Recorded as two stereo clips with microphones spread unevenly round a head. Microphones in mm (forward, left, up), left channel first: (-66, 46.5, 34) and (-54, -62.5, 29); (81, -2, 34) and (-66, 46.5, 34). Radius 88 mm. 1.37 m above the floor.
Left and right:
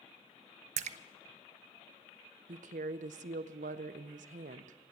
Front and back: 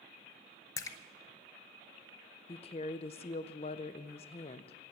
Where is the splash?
90° right, 0.6 m.